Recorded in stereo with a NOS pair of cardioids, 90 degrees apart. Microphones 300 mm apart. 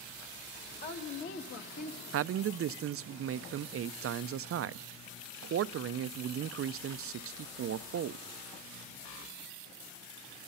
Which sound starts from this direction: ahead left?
A woman speaking, at 0.8 s.